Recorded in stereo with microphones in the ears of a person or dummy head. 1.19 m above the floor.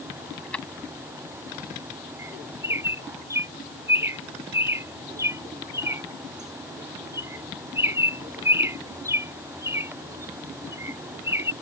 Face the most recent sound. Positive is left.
turn(degrees=-25)  # may be behind; listen again after turning